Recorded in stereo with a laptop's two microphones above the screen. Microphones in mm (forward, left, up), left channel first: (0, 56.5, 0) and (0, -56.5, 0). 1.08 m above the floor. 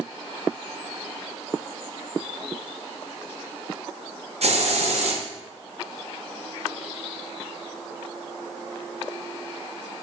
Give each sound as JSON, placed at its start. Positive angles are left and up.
{"t": 4.4, "sound": "a hiss", "side_deg": -70, "distance_m": 1.1}